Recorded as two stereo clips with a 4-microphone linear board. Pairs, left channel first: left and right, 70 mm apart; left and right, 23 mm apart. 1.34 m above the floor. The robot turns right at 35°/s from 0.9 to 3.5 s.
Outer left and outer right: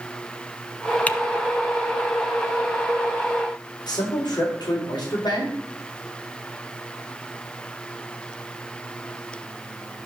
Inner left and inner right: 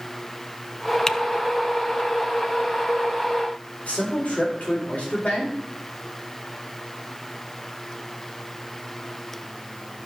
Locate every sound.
1.1 s typing on a keyboard: 20° left (ahead or behind), 0.5 m
3.9 s a man speaking: 80° left, 4 m